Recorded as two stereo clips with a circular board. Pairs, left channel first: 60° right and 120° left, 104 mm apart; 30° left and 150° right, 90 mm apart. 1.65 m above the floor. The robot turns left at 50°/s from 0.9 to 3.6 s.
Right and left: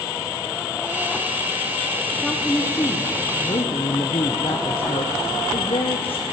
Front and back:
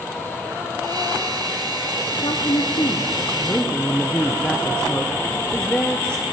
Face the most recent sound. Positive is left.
turn(degrees=-45)